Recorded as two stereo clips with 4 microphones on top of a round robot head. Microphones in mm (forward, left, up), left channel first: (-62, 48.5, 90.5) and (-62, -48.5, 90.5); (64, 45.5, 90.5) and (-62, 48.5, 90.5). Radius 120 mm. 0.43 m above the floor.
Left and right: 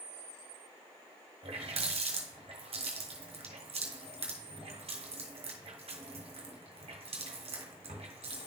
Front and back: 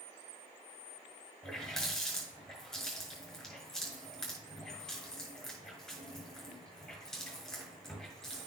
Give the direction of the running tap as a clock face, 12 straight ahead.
3 o'clock.